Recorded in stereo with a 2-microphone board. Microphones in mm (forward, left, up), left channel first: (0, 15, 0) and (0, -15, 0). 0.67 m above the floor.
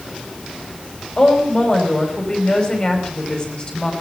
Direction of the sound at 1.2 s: 25° left (ahead or behind).